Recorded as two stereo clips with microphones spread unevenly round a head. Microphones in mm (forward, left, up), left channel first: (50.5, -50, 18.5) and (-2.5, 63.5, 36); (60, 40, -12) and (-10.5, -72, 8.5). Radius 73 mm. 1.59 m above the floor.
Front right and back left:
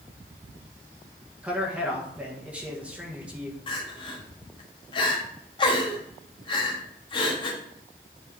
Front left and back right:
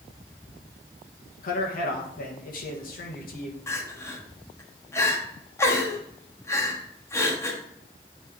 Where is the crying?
15° right, 1.3 m.